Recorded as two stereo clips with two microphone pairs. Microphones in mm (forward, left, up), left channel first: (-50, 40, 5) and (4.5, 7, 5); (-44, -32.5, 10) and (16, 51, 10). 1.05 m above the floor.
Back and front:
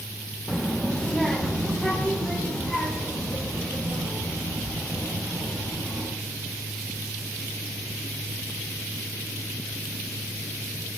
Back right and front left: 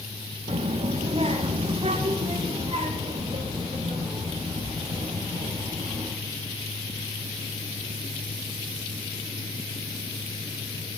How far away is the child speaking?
About 1.0 m.